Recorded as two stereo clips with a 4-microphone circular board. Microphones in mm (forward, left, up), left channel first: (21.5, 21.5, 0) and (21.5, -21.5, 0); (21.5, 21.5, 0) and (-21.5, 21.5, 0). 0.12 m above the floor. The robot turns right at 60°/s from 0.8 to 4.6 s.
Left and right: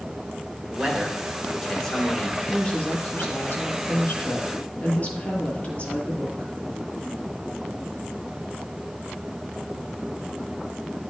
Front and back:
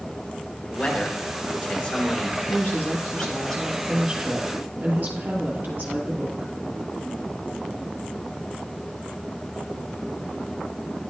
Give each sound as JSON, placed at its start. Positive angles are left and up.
{"t": 0.7, "sound": "a man speaking", "azimuth_deg": -40, "distance_m": 1.4}
{"t": 2.5, "sound": "a woman speaking", "azimuth_deg": 10, "distance_m": 2.0}